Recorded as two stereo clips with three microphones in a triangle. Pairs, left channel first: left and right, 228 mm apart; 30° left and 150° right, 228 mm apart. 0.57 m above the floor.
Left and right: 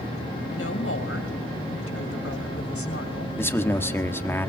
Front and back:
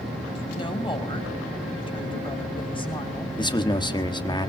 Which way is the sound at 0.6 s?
95° left.